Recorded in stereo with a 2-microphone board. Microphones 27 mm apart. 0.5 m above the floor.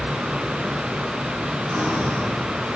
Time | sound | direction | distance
1.7 | breathing | 80° right | 5.5 m